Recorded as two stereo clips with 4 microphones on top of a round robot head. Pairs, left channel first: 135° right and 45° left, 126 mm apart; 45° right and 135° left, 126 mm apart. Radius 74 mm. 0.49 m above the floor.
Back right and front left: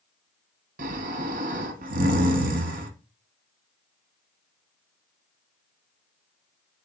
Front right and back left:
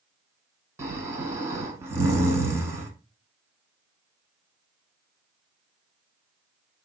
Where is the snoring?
65° left, 0.8 m.